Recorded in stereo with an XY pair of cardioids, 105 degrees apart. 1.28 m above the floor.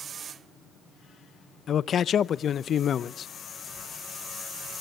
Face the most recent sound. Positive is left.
turn(degrees=50)